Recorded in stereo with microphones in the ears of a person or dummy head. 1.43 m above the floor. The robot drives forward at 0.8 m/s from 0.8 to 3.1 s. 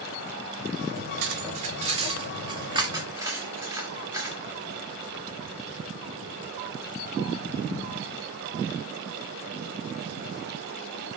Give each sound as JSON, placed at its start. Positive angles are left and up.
{"t": 1.2, "sound": "cutlery clinking", "side_deg": -55, "distance_m": 1.0}